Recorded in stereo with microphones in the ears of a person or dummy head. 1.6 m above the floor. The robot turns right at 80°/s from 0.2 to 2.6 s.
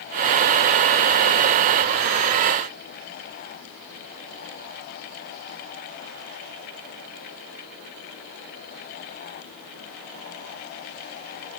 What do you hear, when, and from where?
Only background noise.